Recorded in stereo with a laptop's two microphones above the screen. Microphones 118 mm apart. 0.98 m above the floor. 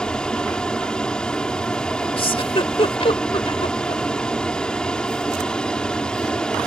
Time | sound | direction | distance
0.0 | an aircraft | 5° left (ahead or behind) | ?
2.2 | a giggle | 50° left (ahead or behind) | ?